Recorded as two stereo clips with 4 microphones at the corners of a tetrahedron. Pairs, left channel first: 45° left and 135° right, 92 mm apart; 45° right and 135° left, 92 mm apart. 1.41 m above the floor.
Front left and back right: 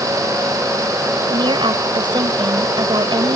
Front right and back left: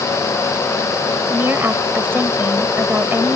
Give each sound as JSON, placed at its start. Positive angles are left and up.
{"t": 1.3, "sound": "a woman speaking", "azimuth_deg": -160}